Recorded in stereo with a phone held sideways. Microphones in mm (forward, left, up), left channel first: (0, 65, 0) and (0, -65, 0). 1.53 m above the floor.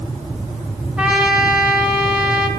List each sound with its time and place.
1.0 s a trumpet: 5° right (ahead or behind), 2.0 m